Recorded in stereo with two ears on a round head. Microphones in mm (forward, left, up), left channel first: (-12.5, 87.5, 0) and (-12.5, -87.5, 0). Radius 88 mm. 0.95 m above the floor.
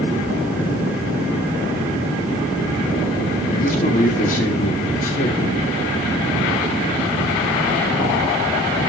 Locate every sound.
3.5 s a man speaking: 40° left (ahead or behind), 2 m